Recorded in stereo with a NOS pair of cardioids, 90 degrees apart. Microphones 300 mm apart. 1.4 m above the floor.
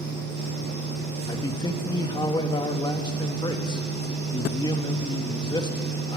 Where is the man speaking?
15° left, 2.5 m.